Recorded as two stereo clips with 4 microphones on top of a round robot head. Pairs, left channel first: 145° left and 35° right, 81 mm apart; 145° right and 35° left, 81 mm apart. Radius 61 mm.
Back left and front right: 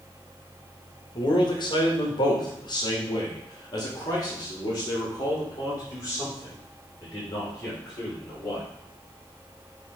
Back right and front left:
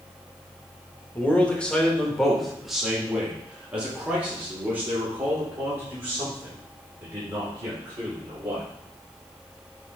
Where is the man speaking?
150° left, 1.6 m; by 8.6 s 95° left, 5 m.